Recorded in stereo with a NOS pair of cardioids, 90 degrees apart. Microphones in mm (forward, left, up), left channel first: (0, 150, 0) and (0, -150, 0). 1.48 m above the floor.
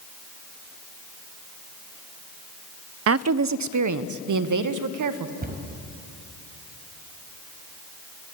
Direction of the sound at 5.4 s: 30° right.